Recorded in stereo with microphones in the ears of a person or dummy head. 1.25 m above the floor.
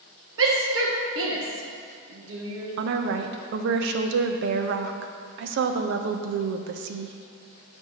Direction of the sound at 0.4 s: 65° right (ahead or behind).